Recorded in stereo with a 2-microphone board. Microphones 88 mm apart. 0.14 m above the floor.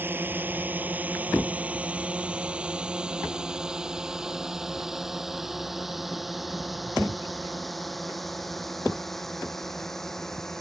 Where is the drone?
25° right (ahead or behind); by 10.6 s 5° left (ahead or behind).